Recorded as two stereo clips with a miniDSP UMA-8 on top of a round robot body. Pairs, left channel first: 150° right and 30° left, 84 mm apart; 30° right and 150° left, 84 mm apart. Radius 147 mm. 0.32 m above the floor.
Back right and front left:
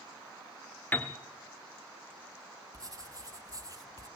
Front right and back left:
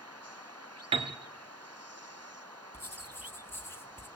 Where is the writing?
20° left, 1.9 m.